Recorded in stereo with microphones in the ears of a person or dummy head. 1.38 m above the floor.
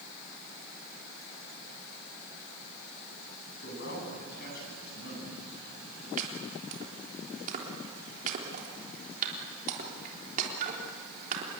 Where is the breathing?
I don't hear breathing.